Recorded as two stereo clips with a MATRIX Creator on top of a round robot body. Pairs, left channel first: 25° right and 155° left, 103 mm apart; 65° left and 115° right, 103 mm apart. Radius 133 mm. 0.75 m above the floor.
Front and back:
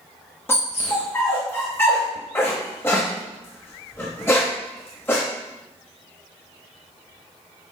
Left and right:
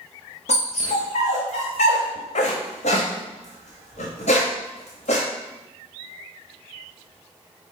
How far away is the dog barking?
About 0.7 m.